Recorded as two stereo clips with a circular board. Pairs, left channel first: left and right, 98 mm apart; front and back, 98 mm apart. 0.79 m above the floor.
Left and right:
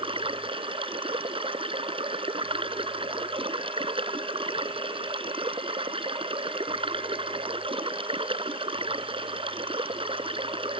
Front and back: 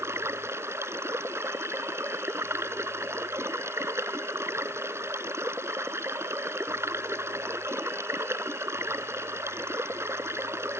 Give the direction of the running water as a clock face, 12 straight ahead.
4 o'clock.